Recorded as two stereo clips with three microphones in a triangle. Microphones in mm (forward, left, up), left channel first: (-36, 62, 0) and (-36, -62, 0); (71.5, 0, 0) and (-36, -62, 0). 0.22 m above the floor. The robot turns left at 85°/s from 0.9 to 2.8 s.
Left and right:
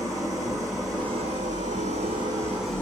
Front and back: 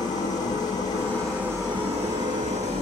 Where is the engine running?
30° right, 4.5 m; by 2.8 s 170° left, 4.5 m.